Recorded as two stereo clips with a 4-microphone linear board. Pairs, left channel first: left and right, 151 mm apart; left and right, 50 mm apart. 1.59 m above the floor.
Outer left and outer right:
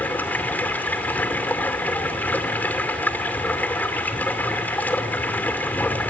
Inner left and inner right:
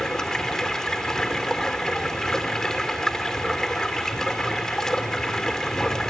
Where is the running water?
10° left (ahead or behind), 2.5 m.